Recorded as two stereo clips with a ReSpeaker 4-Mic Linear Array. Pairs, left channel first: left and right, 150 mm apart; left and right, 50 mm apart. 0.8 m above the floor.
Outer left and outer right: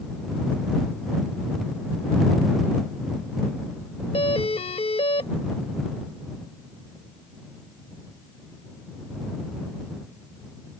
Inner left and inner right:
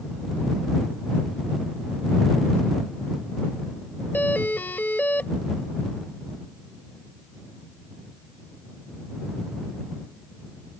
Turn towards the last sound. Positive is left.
turn(degrees=40)  # may be behind; listen again after turning